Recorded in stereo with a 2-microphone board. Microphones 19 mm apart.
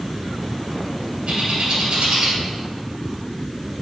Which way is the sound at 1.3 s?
70° right (ahead or behind).